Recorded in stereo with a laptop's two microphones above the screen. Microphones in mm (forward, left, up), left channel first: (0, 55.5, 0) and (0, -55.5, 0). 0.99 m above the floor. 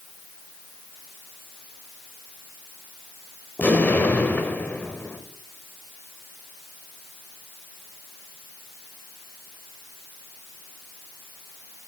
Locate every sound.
3.6 s an explosion: 15° left (ahead or behind), 0.8 m